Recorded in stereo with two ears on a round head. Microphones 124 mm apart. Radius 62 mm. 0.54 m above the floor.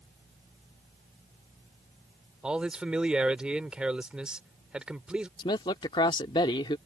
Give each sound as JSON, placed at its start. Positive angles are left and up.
{"t": 2.4, "sound": "a man speaking", "side_deg": -5}
{"t": 5.4, "sound": "a man speaking", "side_deg": 35}